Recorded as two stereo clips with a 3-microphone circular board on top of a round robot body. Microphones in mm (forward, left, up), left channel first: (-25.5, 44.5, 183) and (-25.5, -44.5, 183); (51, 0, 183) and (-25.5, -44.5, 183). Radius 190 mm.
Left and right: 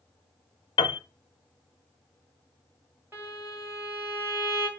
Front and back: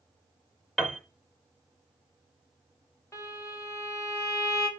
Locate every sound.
0.8 s a piano: 115° left, 0.6 m
3.1 s a violin: 30° right, 4.5 m